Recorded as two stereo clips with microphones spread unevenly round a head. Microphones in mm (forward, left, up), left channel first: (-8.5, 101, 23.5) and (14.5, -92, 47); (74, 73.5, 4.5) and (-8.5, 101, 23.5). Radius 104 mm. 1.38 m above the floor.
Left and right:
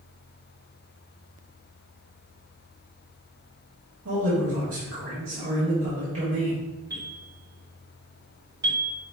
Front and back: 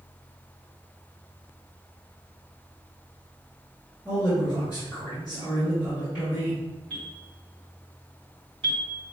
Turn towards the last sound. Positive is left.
turn(degrees=-155)